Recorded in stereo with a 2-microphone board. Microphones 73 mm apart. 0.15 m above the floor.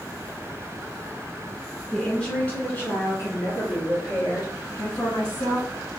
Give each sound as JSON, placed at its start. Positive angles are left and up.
{"t": 1.9, "sound": "a woman speaking", "side_deg": 5, "distance_m": 1.7}